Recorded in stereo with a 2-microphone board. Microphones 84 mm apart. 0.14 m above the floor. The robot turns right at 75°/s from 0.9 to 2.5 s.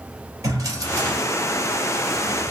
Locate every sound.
0.4 s a drawer: 45° right (ahead or behind), 1.7 m; by 2.5 s 10° right (ahead or behind), 1.7 m